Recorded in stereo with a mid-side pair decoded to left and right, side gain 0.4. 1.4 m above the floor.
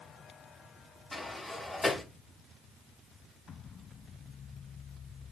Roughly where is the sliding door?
Ahead.